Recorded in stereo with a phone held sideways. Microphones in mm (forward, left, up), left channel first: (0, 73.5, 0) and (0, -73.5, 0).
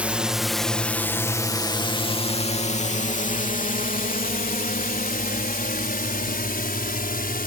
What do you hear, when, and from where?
0.0 s a drone: 10° right (ahead or behind); by 7.5 s 85° left